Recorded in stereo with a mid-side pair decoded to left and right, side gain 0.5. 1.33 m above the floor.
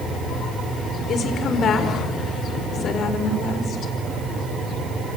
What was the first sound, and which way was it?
A woman speaking, 55° left.